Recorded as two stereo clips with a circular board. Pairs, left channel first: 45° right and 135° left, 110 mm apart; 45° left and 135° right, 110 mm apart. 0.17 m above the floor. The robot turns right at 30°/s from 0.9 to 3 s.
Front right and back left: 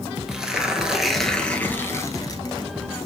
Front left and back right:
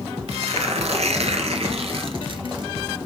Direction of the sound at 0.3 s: 140° right.